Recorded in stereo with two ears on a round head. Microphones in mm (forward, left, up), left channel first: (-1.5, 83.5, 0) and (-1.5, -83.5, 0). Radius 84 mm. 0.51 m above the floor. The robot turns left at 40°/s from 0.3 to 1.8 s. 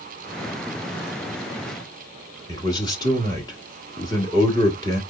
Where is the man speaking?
20° left (ahead or behind), 1.3 m.